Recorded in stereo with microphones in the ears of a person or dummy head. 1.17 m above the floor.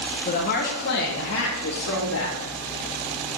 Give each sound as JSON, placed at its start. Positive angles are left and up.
{"t": 0.2, "sound": "a woman speaking", "side_deg": 35, "distance_m": 1.2}